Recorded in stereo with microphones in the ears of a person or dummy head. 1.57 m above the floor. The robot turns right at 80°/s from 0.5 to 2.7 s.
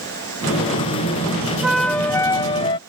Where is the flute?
10° right (ahead or behind); by 2.8 s 25° left (ahead or behind).